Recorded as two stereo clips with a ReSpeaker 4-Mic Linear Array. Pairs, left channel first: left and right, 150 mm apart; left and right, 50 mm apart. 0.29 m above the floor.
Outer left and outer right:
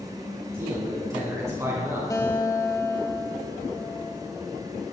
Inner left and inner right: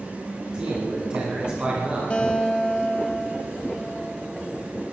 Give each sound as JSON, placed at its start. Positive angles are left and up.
{"t": 0.5, "sound": "a man speaking", "side_deg": -20, "distance_m": 2.5}
{"t": 2.1, "sound": "a guitar", "side_deg": 25, "distance_m": 1.5}